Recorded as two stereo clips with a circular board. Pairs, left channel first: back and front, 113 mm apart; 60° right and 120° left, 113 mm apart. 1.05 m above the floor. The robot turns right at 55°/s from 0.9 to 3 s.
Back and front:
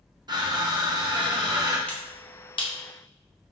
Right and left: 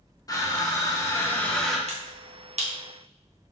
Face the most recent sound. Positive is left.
turn(degrees=160)